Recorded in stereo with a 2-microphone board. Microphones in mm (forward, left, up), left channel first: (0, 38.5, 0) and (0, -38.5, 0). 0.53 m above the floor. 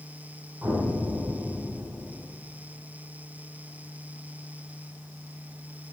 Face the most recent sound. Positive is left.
turn(degrees=-30)  # may be behind; listen again after turning